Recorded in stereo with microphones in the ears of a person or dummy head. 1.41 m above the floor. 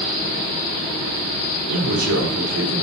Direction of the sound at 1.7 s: 80° right.